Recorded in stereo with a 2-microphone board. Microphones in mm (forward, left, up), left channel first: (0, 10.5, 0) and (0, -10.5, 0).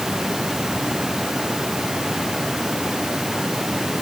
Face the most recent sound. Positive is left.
No sound to turn to.